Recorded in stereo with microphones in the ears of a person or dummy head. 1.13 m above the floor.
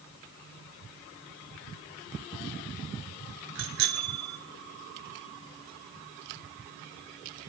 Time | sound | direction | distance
3.5 | a bicycle bell | 70° right (ahead or behind) | 3 m